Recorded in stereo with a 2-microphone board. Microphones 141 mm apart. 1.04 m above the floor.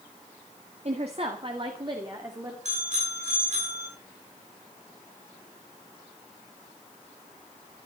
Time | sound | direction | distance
0.8 | a woman speaking | 50° right (ahead or behind) | 1.8 m
2.6 | a bicycle bell | 55° right (ahead or behind) | 10 m